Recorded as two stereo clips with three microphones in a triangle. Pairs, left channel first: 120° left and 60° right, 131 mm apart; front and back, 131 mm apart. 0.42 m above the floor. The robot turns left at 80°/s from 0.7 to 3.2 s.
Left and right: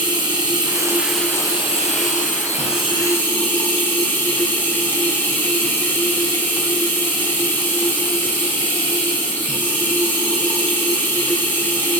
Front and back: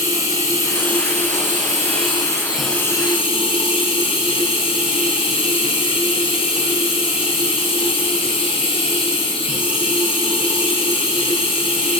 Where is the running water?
115° right, 3.5 m; by 12.0 s 45° left, 3.5 m.